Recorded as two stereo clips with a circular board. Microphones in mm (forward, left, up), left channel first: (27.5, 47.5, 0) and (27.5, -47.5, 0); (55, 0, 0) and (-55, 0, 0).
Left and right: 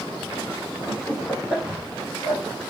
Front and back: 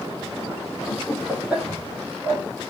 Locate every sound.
0.9 s laughter: 5° left, 1.4 m; by 2.4 s 150° right, 1.7 m